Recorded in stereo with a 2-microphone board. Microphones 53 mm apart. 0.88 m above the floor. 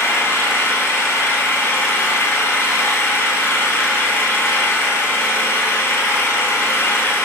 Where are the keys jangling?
No keys jangling in this recording.